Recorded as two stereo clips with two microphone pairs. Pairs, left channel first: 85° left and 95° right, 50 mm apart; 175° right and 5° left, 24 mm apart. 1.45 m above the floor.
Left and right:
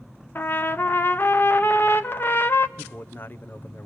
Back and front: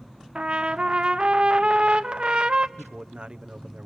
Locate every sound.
0.3 s a trumpet: 45° left, 0.7 m
2.8 s a man speaking: 40° left, 0.9 m